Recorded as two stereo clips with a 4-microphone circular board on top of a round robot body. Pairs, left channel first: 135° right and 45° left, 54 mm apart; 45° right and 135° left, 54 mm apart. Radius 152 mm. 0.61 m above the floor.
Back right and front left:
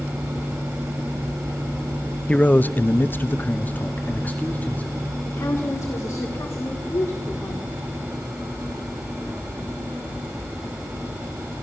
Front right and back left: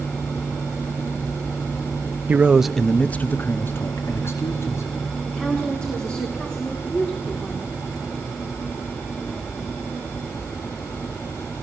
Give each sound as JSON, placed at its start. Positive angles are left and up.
{"t": 2.3, "sound": "a man speaking", "azimuth_deg": 175, "distance_m": 0.8}
{"t": 5.2, "sound": "a woman speaking", "azimuth_deg": -120, "distance_m": 2.0}